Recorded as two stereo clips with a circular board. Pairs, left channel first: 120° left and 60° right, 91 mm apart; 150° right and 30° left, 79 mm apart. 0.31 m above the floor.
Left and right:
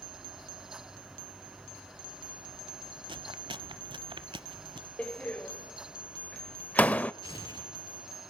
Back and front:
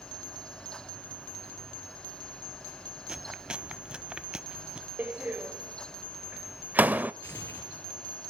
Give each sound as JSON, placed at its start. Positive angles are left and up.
{"t": 3.1, "sound": "chewing", "azimuth_deg": -45, "distance_m": 0.8}
{"t": 5.0, "sound": "a door slam", "azimuth_deg": 65, "distance_m": 0.6}
{"t": 7.2, "sound": "tearing paper", "azimuth_deg": 155, "distance_m": 5.5}